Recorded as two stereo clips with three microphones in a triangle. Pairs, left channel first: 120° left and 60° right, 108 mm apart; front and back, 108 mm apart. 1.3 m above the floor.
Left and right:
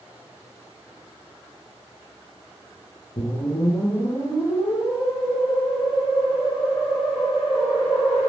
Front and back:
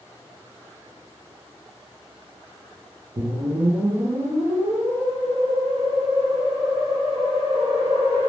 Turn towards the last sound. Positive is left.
turn(degrees=145)